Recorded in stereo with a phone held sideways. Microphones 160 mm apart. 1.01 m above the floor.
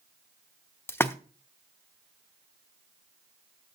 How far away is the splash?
About 0.7 m.